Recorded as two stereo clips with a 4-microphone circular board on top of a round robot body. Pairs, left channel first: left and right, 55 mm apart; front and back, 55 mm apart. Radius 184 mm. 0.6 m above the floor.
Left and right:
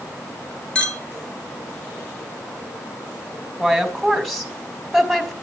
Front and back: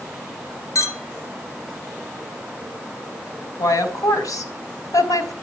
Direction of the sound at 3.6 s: 5° left.